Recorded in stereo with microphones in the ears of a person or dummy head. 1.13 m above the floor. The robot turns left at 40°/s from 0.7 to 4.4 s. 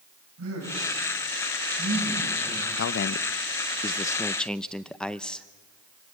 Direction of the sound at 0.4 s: 75° right (ahead or behind).